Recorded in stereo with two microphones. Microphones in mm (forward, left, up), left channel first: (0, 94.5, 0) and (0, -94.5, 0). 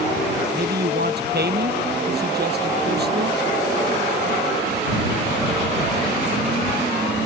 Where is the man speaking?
60° right (ahead or behind).